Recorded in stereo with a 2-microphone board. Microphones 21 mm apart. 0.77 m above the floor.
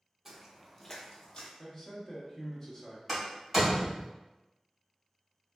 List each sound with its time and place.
0.2 s footsteps: 15° right (ahead or behind), 0.8 m; by 1.5 s 45° left (ahead or behind), 1.0 m
1.6 s a man speaking: 20° left (ahead or behind), 1.1 m
3.1 s a door slam: 5° right (ahead or behind), 1.9 m